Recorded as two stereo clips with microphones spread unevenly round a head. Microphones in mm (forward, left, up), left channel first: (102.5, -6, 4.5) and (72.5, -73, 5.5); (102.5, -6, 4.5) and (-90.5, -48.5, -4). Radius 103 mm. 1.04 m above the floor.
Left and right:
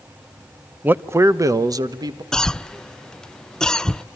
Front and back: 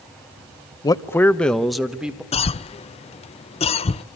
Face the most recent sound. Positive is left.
turn(degrees=0)